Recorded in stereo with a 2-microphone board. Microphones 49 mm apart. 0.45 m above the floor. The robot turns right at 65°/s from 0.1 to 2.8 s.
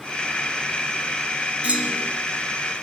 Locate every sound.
1.6 s a clunk: 25° right, 3 m; by 2.1 s 5° left, 3 m